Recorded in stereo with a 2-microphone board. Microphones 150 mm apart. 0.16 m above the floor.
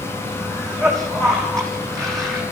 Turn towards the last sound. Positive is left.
turn(degrees=5)  # may be behind; listen again after turning